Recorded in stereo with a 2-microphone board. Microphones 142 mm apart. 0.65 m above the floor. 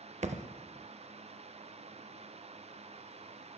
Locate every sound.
0.2 s a thud: 55° right (ahead or behind), 0.5 m